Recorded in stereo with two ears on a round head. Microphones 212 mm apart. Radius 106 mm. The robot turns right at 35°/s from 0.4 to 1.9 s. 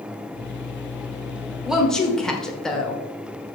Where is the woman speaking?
5° right (ahead or behind), 1.3 m; by 3.0 s 5° left (ahead or behind), 1.3 m.